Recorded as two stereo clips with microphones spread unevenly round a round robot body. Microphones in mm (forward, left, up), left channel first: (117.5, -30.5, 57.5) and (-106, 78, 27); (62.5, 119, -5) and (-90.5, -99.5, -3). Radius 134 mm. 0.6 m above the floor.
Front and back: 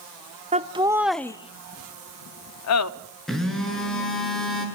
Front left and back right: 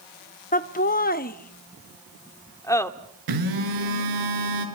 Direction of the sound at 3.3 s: 115° right.